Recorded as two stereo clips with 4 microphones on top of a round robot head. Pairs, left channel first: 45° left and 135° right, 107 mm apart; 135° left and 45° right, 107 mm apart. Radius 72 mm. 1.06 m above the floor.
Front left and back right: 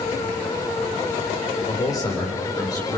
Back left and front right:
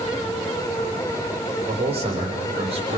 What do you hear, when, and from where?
1.7 s a man speaking: 15° right, 4 m